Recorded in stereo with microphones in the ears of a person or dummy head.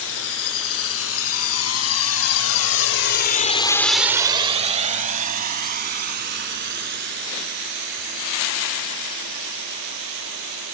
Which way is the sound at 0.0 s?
80° left.